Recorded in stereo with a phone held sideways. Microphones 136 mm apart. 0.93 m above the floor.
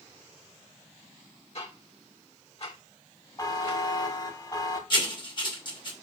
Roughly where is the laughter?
No laughter in this recording.